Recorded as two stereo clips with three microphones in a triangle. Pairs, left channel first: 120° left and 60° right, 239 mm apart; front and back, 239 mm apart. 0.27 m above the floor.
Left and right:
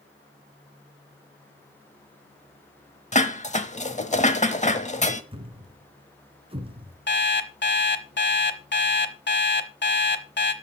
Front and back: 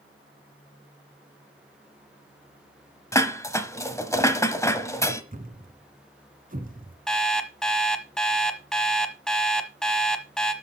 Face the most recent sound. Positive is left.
turn(degrees=85)